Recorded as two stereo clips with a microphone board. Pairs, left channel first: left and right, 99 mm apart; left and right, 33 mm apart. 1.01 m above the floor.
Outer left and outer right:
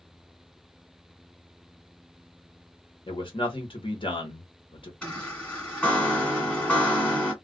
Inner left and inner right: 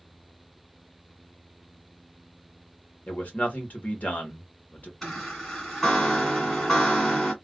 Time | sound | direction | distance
3.1 | a man speaking | 55° left (ahead or behind) | 1.2 m
5.0 | a chime | 10° left (ahead or behind) | 1.6 m